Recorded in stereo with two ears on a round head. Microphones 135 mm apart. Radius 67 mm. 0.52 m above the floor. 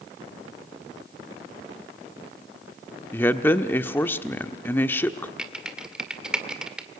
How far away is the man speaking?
About 1.0 m.